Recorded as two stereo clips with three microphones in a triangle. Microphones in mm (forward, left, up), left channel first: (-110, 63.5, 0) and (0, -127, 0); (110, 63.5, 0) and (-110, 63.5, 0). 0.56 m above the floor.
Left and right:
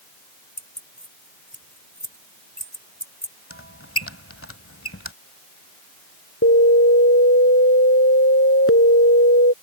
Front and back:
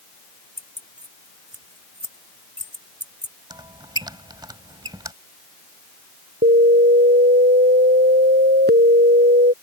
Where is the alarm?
140° left.